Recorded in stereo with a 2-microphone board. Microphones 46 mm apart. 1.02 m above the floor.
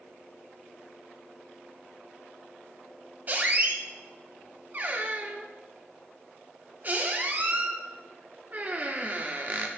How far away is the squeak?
About 0.8 m.